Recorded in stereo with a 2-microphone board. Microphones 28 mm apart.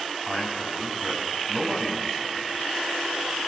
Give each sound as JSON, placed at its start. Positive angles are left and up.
{"t": 0.3, "sound": "a man speaking", "side_deg": -30, "distance_m": 5.5}